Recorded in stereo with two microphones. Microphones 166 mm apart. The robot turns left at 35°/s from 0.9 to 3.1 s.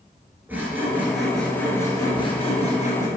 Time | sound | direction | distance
0.5 | sawing | 165° right | 1.5 m